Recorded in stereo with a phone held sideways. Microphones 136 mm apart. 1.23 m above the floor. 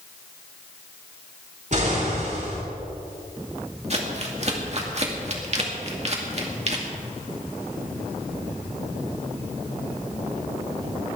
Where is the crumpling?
50° right (ahead or behind), 2 m.